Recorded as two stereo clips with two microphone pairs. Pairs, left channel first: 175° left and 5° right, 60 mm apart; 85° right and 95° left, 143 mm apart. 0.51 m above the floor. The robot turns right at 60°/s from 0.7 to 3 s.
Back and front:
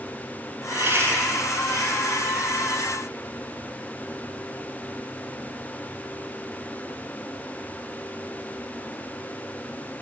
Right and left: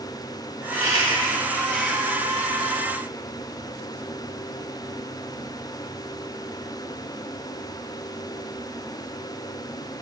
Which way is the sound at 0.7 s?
60° right.